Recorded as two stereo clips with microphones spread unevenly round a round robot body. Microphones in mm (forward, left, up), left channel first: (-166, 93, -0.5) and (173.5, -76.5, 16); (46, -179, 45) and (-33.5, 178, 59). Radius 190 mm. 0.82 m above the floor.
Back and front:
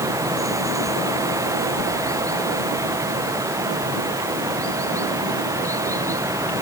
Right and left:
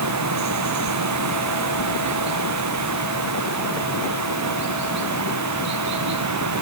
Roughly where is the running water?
Ahead left.